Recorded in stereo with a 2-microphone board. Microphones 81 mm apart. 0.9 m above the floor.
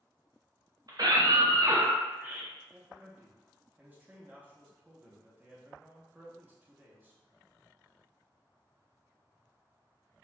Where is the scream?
50° right (ahead or behind), 1.0 m; by 2.5 s 10° right (ahead or behind), 0.6 m.